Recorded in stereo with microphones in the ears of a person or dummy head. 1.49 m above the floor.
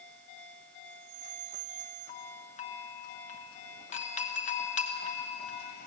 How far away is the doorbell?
About 1.2 m.